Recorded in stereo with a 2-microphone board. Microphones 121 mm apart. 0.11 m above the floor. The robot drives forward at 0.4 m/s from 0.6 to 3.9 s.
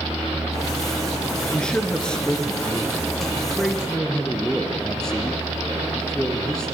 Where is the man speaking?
10° left (ahead or behind), 1.6 m; by 6.8 s 5° left (ahead or behind), 2 m.